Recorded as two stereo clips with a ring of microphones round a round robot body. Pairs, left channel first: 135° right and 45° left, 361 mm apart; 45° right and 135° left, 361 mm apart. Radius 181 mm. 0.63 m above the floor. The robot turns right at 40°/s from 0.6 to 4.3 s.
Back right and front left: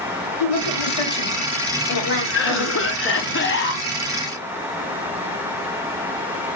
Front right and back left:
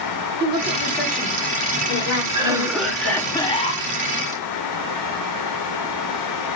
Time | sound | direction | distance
0.4 | a woman speaking | 150° right | 2.5 m
2.3 | a cough | 160° right | 0.5 m